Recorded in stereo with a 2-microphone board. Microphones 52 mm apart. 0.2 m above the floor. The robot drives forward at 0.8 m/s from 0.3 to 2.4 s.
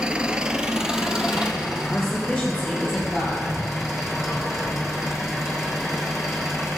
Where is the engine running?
20° right (ahead or behind), 0.8 m; by 6.8 s 5° right (ahead or behind), 2.5 m.